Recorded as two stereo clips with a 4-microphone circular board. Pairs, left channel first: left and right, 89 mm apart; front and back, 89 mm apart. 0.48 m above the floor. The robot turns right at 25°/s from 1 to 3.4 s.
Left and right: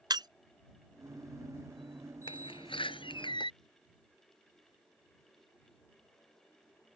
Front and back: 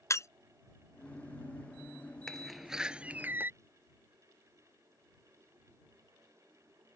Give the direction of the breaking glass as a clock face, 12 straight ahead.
2 o'clock.